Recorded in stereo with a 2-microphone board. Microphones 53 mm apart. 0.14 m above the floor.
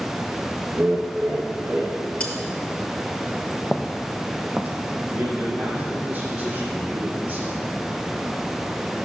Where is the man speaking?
25° right (ahead or behind), 4 m.